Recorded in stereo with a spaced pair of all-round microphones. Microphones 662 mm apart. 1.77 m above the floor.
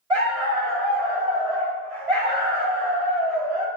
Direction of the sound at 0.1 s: 60° right (ahead or behind).